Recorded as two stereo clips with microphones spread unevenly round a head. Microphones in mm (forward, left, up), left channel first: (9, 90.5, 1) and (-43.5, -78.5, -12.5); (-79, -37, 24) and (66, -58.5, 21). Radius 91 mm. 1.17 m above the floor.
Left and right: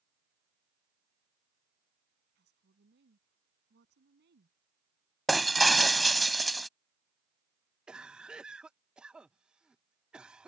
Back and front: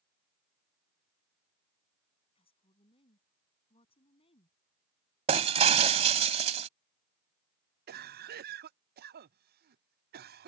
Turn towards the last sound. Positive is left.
turn(degrees=-20)